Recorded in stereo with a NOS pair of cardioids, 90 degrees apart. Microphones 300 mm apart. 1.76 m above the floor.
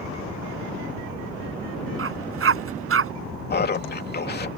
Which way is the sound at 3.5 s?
35° left.